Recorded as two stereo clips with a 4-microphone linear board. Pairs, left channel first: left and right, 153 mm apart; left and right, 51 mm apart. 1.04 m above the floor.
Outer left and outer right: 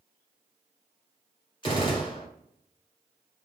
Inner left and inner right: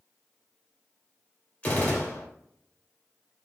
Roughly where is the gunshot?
Left.